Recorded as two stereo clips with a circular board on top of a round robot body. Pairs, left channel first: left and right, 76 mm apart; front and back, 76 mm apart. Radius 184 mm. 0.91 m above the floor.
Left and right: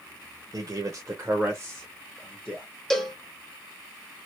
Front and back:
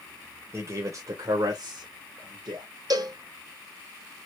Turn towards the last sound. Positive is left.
turn(degrees=175)